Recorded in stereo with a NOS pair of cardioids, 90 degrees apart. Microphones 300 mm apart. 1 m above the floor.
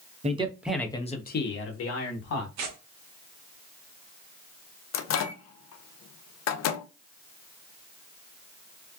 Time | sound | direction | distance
0.2 | a man speaking | 25° right | 0.8 m
2.6 | tearing paper | 65° right | 0.9 m
4.9 | a microwave | 60° left | 0.6 m